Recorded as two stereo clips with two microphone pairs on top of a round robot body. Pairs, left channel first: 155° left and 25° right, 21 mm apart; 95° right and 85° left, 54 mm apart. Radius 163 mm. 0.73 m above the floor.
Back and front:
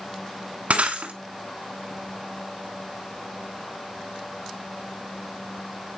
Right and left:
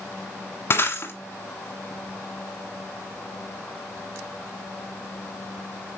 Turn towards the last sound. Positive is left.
turn(degrees=-45)